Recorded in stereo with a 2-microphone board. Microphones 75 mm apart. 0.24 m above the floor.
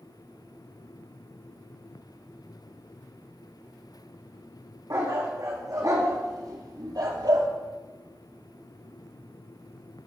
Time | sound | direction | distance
4.9 | a dog barking | 45° right (ahead or behind) | 5 m